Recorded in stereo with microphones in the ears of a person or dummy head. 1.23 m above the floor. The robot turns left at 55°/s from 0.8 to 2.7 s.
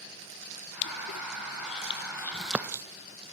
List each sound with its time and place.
0.8 s crushing: 75° left (ahead or behind), 0.5 m; by 2.8 s 15° right (ahead or behind), 0.5 m